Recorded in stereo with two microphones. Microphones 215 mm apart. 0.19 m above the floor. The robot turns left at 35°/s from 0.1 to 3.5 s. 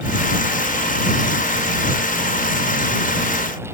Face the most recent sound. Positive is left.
No sound to turn to.